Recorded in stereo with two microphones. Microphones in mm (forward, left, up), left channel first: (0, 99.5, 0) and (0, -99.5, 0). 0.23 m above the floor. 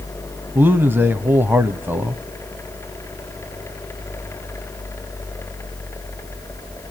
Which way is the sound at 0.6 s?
10° right (ahead or behind).